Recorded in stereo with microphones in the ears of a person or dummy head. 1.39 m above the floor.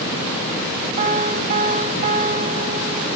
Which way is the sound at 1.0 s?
45° right (ahead or behind).